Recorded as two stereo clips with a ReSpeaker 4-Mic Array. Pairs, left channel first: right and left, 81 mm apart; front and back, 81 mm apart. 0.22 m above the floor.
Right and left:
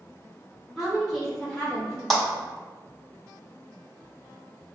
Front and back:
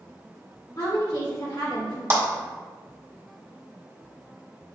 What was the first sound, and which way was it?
A woman speaking, 5° left.